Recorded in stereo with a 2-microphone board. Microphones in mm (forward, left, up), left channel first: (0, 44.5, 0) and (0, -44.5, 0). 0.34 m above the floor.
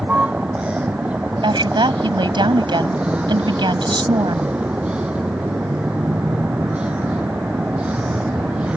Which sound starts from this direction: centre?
A vehicle, at 0.0 s.